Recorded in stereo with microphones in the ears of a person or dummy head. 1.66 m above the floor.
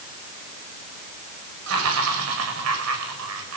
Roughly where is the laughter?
Right.